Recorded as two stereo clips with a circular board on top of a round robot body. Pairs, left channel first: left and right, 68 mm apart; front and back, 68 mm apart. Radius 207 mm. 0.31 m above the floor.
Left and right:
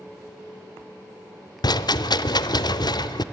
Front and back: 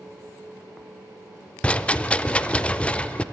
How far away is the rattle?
About 0.6 m.